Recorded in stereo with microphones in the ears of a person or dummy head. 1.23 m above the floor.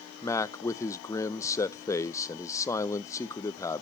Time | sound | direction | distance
0.2 | a man speaking | 20° left (ahead or behind) | 0.6 m